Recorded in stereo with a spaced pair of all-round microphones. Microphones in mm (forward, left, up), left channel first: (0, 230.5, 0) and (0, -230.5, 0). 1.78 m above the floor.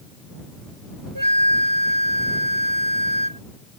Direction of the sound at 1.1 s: 45° right (ahead or behind).